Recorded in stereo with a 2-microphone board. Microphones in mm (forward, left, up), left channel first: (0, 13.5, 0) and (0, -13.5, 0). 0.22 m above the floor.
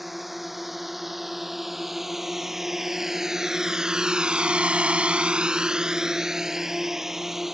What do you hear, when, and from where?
0.0 s a drone: 10° right (ahead or behind)